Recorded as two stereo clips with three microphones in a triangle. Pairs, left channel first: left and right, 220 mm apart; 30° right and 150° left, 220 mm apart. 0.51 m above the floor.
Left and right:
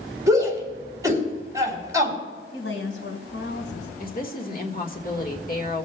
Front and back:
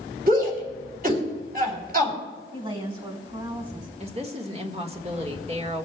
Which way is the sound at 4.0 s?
105° left.